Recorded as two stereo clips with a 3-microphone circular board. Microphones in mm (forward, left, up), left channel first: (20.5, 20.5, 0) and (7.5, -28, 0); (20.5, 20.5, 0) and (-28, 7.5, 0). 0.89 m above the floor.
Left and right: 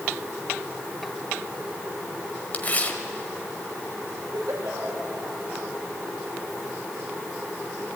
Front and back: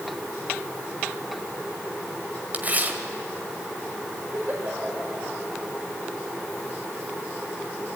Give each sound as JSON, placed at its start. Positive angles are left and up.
{"t": 2.5, "sound": "tearing paper", "azimuth_deg": 135, "distance_m": 1.6}
{"t": 4.3, "sound": "a giggle", "azimuth_deg": -115, "distance_m": 4.0}